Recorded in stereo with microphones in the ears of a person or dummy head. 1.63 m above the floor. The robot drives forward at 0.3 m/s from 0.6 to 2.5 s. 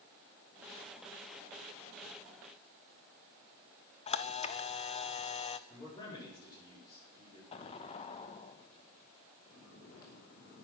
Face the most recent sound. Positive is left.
turn(degrees=55)  # may be behind; listen again after turning